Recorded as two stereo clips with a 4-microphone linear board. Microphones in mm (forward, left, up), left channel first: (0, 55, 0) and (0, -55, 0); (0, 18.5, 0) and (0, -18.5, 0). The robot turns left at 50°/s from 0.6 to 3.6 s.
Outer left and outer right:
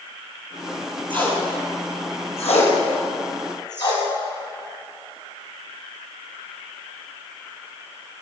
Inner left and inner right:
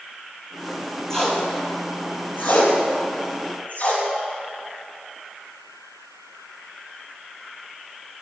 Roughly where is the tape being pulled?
Centre.